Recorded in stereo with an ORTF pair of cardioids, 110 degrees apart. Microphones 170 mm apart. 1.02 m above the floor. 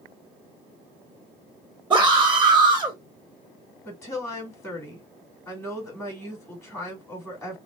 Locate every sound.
1.9 s a scream: 10° right, 1.3 m
3.9 s a woman speaking: 15° left, 3 m